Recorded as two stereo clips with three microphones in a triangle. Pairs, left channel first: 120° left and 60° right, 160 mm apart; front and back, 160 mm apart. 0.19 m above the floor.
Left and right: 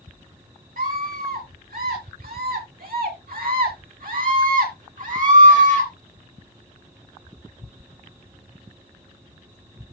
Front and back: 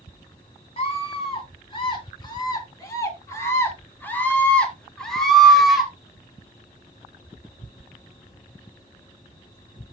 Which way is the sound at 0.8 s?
50° right.